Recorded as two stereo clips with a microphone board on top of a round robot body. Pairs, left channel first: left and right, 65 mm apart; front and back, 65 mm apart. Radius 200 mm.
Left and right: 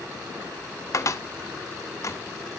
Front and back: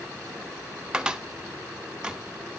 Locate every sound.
0.9 s a cupboard door: 105° left, 1.8 m